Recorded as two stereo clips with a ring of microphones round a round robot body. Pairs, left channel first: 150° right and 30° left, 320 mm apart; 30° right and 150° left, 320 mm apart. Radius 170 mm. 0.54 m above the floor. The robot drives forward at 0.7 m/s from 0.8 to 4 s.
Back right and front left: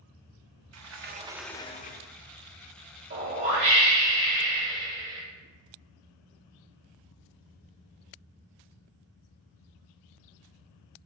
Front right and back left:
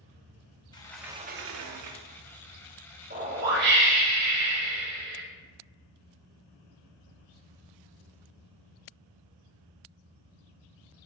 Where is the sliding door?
45° left, 0.6 m; by 2.2 s 160° left, 0.9 m.